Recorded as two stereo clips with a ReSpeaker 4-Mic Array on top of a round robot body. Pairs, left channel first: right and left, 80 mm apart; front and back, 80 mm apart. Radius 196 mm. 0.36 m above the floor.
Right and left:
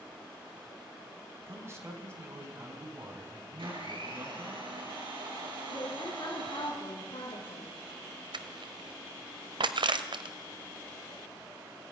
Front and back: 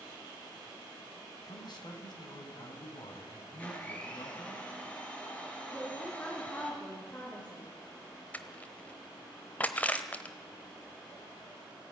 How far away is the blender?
About 6 m.